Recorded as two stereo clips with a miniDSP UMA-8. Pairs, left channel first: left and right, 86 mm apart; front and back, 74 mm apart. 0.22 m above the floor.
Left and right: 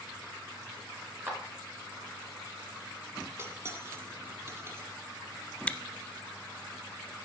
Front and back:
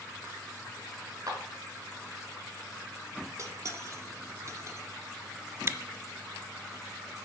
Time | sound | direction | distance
1.3 | a clap | 150° right | 2.5 m
3.4 | cutlery clinking | 145° right | 1.0 m
5.7 | chewing | 155° left | 0.6 m